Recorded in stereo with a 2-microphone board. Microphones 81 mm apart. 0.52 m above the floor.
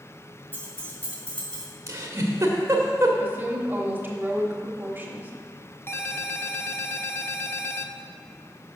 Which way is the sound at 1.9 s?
35° right (ahead or behind).